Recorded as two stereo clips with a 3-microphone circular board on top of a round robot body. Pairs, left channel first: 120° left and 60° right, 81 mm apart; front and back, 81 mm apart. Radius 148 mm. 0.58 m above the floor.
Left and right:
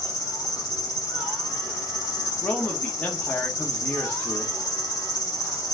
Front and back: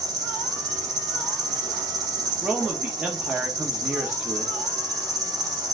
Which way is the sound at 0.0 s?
155° left.